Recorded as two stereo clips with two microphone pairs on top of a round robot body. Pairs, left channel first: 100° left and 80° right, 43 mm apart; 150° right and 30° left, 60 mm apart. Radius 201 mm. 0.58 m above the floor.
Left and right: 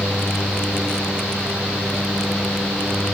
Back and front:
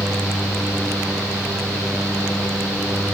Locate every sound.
Only background noise.